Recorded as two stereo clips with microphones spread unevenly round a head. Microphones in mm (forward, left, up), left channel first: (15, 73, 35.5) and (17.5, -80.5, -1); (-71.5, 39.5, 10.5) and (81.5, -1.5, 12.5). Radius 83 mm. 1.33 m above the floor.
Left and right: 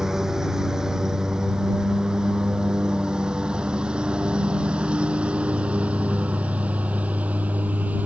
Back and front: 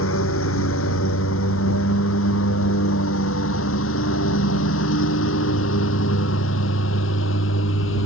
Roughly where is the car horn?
I don't hear a car horn.